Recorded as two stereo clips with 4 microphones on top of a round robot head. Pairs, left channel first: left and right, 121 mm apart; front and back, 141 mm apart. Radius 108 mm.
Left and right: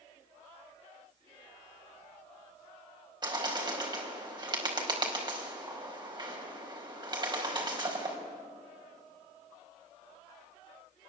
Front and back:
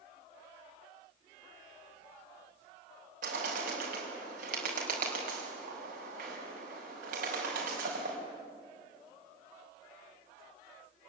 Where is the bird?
140° right, 4.5 m.